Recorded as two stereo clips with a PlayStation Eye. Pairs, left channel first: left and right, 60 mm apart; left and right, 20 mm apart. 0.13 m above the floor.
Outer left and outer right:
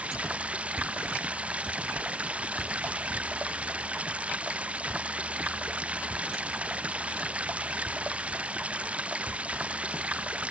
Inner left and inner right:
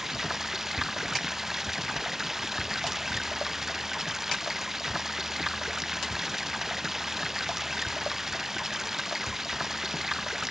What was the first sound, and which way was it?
Running water, 20° right (ahead or behind).